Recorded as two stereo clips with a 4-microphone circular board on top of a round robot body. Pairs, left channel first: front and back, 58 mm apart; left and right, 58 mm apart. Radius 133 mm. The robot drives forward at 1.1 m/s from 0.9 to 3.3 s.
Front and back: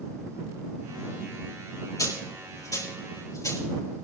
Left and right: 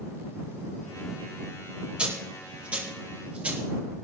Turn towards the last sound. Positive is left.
turn(degrees=-25)